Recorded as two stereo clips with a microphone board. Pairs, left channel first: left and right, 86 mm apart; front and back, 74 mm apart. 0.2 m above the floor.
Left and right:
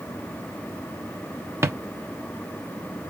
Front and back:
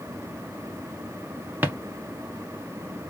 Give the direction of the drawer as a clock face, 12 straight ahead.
4 o'clock.